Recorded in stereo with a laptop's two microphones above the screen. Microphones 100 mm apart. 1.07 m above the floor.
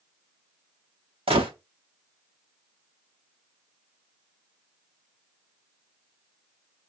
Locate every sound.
1.3 s a gunshot: 70° right (ahead or behind), 0.9 m